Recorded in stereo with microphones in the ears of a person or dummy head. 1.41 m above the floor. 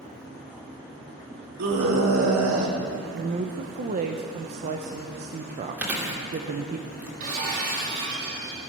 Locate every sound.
1.6 s a scream: 90° right, 3 m; by 2.8 s 75° right (ahead or behind), 2.5 m
3.1 s a woman speaking: 35° right (ahead or behind), 0.8 m
5.8 s chewing: 10° right (ahead or behind), 2.5 m
7.2 s breaking glass: 50° right (ahead or behind), 6 m